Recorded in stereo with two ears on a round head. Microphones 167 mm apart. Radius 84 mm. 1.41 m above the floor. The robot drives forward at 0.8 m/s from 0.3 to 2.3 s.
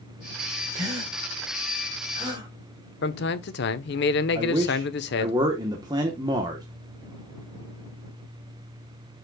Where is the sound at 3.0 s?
60° left (ahead or behind), 1.0 m.